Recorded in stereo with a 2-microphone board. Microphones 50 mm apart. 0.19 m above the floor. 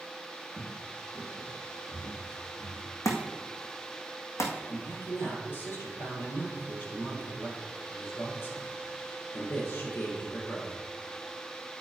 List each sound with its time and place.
0.5 s footsteps: 5° right (ahead or behind), 1.2 m; by 3.0 s 55° left (ahead or behind), 3 m
3.0 s a thud: 85° left, 1.6 m
4.7 s a man speaking: 50° left (ahead or behind), 3.5 m